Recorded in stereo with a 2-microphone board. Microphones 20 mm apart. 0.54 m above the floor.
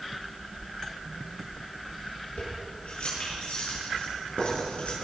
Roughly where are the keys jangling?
Left.